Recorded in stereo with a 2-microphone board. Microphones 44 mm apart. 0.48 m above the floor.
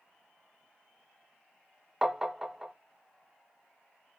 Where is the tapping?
10° right (ahead or behind), 0.6 m.